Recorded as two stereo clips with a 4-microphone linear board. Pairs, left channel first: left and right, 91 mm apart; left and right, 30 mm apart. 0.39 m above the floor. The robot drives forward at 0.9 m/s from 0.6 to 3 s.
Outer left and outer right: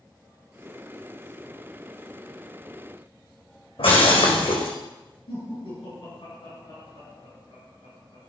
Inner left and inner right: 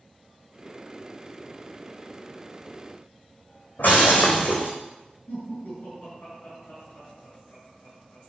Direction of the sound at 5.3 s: 80° left.